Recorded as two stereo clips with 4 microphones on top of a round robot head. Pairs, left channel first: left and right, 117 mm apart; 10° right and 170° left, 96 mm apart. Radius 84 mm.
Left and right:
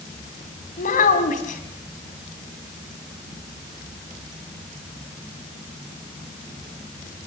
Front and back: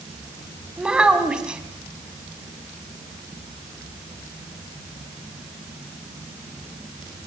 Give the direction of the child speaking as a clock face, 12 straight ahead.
9 o'clock.